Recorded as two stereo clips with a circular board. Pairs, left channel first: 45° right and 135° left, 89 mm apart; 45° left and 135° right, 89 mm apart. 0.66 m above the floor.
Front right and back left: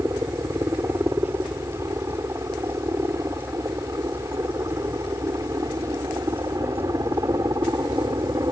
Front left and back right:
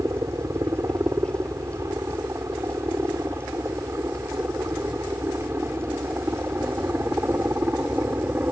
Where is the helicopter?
Straight behind; by 8.5 s 165° left.